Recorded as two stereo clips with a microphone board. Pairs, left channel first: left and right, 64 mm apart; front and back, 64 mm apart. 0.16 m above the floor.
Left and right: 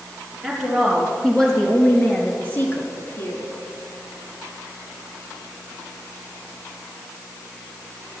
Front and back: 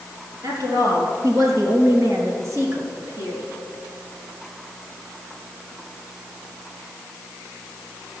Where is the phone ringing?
No phone ringing in this recording.